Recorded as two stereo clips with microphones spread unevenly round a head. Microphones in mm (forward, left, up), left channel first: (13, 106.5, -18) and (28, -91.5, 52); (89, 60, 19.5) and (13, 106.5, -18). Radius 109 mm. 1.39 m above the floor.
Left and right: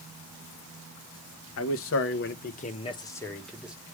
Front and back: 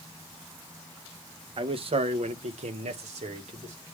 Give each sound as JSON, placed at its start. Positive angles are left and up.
{"t": 1.6, "sound": "a man speaking", "azimuth_deg": 120, "distance_m": 1.3}